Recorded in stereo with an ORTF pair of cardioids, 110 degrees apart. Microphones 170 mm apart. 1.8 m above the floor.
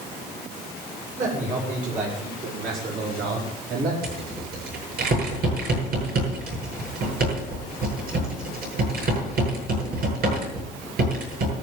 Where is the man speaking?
50° right, 8 m; by 3.9 s 65° right, 5 m.